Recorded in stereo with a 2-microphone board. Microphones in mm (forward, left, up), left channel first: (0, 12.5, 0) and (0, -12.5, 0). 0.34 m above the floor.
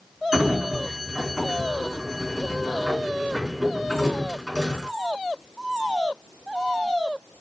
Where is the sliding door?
15° right (ahead or behind), 3 m.